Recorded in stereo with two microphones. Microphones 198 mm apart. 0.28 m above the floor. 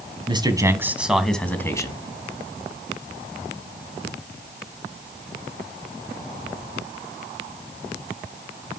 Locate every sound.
0.3 s a man speaking: 25° right (ahead or behind), 2.5 m; by 2.0 s 20° left (ahead or behind), 2.5 m